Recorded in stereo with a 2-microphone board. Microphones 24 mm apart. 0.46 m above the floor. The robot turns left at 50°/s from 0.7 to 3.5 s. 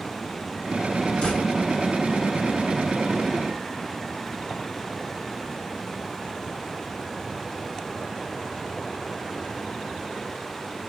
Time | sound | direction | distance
1.2 | a door slam | 65° left (ahead or behind) | 4.5 m